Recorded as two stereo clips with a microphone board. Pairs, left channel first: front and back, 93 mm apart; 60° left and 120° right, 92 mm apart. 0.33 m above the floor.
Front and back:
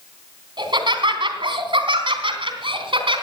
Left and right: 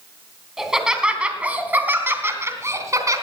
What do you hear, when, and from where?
0.6 s laughter: 155° left, 2.5 m; by 3.2 s 170° right, 3 m